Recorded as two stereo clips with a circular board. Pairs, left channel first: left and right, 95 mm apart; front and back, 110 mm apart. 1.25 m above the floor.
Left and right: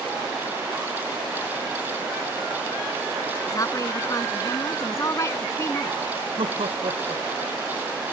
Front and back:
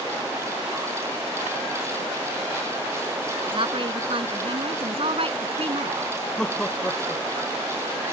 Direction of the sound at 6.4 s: 80° right.